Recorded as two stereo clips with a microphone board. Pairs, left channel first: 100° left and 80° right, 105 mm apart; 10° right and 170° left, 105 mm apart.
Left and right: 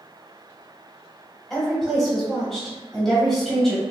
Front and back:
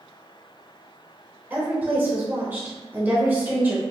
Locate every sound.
1.5 s a woman speaking: straight behind, 1.0 m